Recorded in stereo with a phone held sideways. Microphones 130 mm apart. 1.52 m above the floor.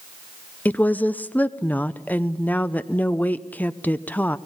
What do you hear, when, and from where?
0.7 s a woman speaking: 15° left (ahead or behind), 0.7 m